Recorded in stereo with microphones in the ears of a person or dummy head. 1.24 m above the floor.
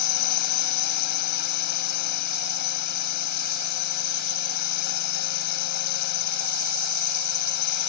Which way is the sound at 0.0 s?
50° left (ahead or behind).